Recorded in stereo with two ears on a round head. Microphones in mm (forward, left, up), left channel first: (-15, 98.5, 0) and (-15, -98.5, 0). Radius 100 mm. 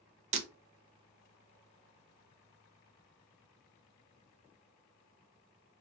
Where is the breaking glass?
30° right (ahead or behind), 0.6 m.